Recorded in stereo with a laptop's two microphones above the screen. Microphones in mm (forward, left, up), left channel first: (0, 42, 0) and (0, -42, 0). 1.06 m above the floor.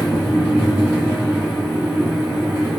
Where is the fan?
25° right (ahead or behind), 0.9 m.